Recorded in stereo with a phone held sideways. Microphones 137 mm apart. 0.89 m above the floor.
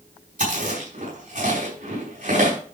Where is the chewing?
85° right, 5 m.